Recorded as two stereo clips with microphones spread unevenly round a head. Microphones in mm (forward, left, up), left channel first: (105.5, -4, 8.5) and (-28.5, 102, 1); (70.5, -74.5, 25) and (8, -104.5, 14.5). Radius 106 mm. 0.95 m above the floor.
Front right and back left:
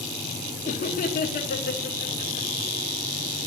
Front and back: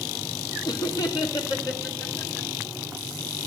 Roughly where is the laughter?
Ahead.